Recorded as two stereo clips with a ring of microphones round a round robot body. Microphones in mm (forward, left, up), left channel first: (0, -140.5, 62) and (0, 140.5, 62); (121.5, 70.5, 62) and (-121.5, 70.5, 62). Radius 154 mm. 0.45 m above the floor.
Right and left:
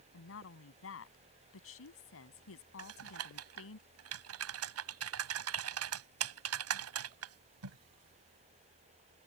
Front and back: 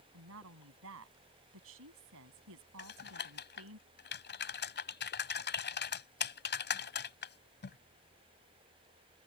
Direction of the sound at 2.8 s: 50° left.